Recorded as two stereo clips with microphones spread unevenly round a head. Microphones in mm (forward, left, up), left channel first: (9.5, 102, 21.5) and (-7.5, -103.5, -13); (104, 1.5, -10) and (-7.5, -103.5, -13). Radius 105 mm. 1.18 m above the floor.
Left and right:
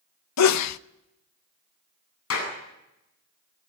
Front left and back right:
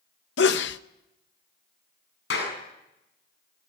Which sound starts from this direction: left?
A sneeze, at 0.4 s.